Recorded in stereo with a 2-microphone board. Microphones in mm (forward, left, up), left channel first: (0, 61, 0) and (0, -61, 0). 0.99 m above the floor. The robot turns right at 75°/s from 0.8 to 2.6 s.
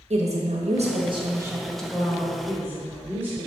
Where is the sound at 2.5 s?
35° right (ahead or behind), 2 m; by 3.5 s 25° right (ahead or behind), 2 m.